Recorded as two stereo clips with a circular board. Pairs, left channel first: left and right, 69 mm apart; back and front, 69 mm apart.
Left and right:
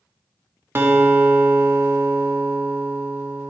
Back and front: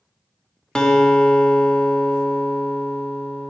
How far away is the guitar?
About 0.9 m.